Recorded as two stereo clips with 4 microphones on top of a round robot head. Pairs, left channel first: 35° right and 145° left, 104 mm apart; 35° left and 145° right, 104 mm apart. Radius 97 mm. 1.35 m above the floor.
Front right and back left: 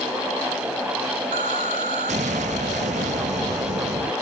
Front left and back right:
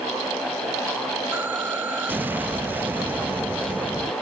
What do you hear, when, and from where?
1.3 s an explosion: 140° left